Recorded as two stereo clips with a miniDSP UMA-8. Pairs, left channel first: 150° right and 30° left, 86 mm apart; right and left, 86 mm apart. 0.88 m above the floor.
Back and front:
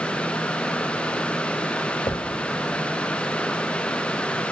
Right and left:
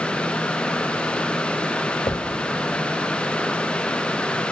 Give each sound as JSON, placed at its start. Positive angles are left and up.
{"t": 2.1, "sound": "a thud", "azimuth_deg": -120, "distance_m": 1.8}